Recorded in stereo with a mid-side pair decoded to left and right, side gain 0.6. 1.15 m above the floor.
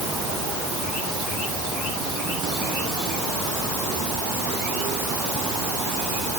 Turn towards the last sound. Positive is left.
No sound to turn to.